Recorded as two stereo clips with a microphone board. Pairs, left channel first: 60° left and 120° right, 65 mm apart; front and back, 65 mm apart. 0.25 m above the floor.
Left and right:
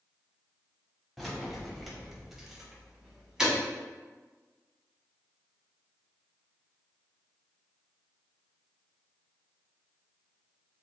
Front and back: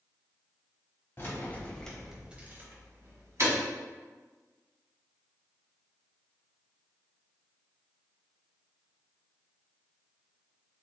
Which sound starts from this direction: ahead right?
Keys jangling, at 1.2 s.